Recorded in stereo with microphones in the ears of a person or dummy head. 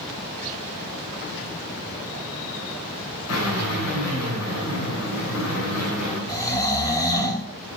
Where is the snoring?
20° left (ahead or behind), 2.5 m.